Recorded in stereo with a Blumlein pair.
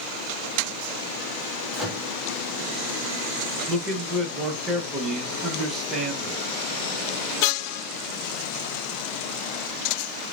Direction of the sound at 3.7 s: 20° right.